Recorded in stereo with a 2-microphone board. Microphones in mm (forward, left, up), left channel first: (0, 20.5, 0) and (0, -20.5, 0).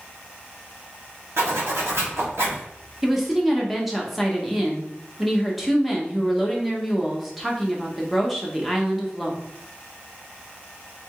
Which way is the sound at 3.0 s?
5° right (ahead or behind).